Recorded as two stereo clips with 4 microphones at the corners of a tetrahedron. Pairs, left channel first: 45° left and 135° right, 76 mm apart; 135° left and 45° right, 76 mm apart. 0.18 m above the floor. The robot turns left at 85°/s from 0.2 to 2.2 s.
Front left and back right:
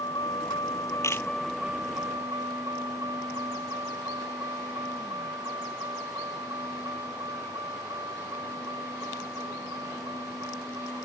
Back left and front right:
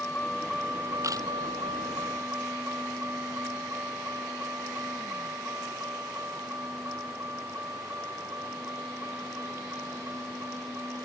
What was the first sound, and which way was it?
A vehicle, 65° left.